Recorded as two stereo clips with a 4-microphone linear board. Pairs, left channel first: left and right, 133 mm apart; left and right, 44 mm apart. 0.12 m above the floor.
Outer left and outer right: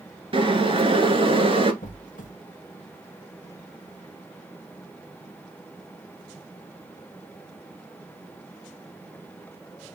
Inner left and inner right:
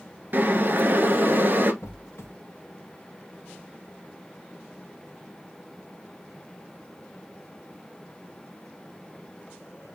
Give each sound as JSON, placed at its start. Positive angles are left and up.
{"t": 0.3, "sound": "boiling", "side_deg": -45, "distance_m": 1.1}
{"t": 1.8, "sound": "a squeak", "side_deg": 80, "distance_m": 1.0}